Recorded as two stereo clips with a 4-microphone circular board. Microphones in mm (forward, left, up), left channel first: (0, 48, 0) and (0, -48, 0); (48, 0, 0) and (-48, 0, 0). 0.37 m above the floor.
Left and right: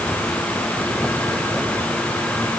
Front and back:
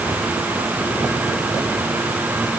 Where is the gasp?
I don't hear a gasp.